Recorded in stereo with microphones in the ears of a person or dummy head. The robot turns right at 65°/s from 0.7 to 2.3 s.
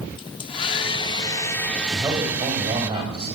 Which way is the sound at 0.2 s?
25° left (ahead or behind).